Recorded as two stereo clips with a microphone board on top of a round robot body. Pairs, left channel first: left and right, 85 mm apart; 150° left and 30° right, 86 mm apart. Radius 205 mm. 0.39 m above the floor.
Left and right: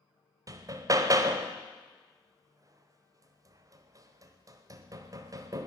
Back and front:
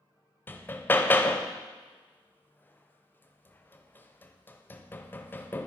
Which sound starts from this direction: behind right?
Hammering, at 0.5 s.